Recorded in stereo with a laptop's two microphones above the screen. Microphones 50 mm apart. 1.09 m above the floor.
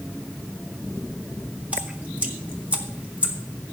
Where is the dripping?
30° right (ahead or behind), 1.7 m.